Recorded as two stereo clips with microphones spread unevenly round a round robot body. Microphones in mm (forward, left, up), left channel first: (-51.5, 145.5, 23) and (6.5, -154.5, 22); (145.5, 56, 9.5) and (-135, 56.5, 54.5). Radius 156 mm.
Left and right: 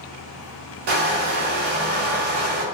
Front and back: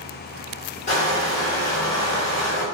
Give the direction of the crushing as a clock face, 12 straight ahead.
2 o'clock.